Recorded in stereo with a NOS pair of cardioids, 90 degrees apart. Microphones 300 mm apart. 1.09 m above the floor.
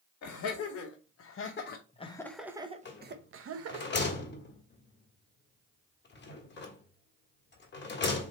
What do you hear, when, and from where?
0.2 s laughter: 65° left, 1.5 m; by 3.9 s 55° right, 1.1 m
2.9 s a rattle: 35° left, 1.6 m